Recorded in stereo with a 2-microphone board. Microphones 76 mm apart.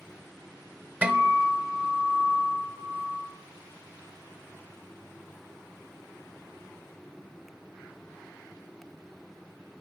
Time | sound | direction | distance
1.0 | a guitar | 20° right (ahead or behind) | 1.2 m